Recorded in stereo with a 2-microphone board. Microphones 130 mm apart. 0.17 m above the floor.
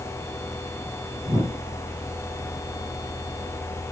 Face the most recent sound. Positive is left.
turn(degrees=-30)  # may be behind; listen again after turning